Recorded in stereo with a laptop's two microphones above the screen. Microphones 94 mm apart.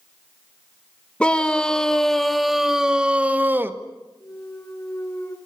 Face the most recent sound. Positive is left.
turn(degrees=30)  # may be behind; listen again after turning